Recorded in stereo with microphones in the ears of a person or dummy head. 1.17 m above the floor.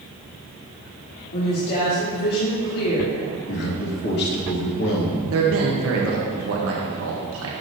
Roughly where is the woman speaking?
Left.